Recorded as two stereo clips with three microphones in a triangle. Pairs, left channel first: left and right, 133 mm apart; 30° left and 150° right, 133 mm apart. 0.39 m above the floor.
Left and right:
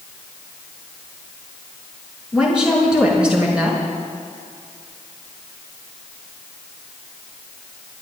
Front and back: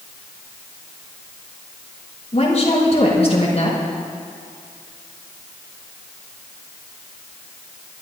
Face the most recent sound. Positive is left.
turn(degrees=-5)